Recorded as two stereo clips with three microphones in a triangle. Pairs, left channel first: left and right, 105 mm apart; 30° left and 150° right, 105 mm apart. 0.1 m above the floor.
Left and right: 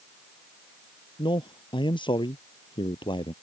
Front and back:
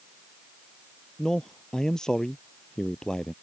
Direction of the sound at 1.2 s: 115° left.